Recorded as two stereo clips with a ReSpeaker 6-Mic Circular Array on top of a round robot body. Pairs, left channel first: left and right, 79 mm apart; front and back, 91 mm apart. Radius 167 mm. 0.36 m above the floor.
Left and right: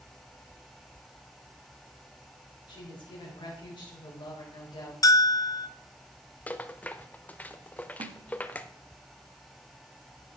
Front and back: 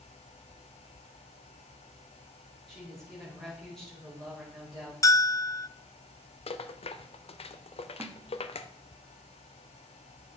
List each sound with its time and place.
2.7 s a woman speaking: 90° left, 2.5 m
5.0 s a bell: 50° left, 0.5 m
6.5 s a rattle: 15° left, 0.5 m
8.0 s a snare drum: 110° right, 0.8 m